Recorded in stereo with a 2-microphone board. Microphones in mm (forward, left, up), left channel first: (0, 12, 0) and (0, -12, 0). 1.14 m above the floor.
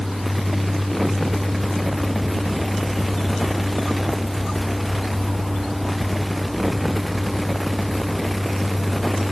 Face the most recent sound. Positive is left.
No sound to turn to.